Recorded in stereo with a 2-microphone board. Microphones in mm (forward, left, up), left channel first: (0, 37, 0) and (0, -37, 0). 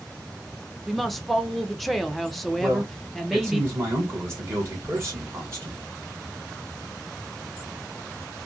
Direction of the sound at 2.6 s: 35° right (ahead or behind).